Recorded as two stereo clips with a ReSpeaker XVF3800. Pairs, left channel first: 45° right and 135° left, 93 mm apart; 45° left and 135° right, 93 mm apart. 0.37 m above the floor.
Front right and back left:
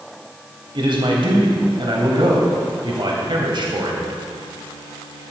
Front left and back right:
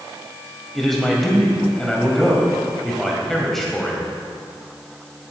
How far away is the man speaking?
About 1.9 m.